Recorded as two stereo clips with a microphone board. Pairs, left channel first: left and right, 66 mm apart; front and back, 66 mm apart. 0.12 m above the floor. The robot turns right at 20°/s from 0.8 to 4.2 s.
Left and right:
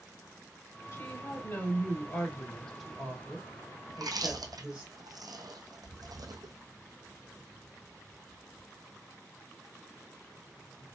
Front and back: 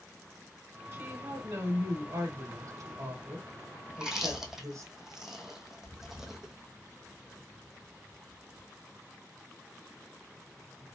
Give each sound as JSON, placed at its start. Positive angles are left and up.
{"t": 0.9, "sound": "a woman speaking", "azimuth_deg": 125, "distance_m": 2.5}
{"t": 3.9, "sound": "chewing", "azimuth_deg": -105, "distance_m": 0.9}